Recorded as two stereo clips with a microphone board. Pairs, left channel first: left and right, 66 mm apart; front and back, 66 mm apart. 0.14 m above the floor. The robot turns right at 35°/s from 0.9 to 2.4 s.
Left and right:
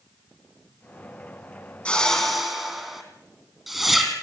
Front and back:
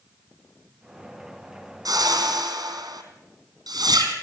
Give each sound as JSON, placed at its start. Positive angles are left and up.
{"t": 1.9, "sound": "a whoosh", "azimuth_deg": 160, "distance_m": 2.5}